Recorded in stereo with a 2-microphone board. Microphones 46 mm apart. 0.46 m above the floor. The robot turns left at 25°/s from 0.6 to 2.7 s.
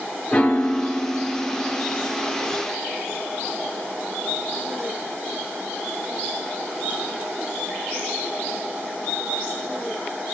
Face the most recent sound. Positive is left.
turn(degrees=-20)